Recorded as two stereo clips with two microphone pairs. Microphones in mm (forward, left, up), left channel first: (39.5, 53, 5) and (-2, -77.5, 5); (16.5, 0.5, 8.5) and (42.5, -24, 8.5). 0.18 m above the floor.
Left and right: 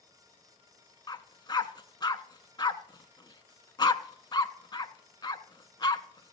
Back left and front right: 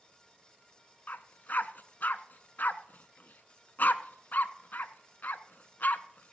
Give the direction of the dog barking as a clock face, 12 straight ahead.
8 o'clock.